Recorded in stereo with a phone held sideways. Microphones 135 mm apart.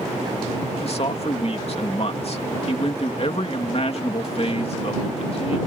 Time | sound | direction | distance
0.8 | a man speaking | 50° left (ahead or behind) | ?